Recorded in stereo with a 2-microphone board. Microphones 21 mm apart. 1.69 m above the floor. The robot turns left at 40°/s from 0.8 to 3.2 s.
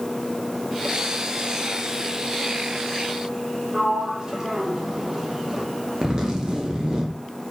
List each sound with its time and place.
3.7 s a sliding door: 30° right (ahead or behind), 0.5 m
6.0 s a zipper: 35° right (ahead or behind), 0.5 m